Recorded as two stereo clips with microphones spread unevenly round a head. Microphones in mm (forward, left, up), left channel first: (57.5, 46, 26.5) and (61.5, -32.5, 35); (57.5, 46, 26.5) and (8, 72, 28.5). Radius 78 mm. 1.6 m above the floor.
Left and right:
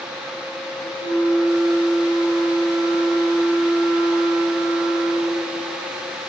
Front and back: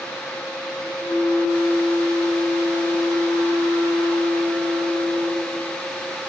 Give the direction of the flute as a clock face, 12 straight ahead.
3 o'clock.